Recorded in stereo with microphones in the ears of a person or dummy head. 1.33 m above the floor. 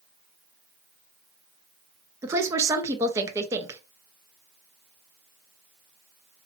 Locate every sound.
2.2 s a woman speaking: 15° right (ahead or behind), 0.7 m